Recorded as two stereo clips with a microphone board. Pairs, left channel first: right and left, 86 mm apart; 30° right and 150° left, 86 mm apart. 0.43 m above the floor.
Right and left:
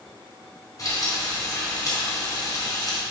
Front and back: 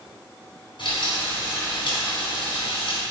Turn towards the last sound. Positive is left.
turn(degrees=-45)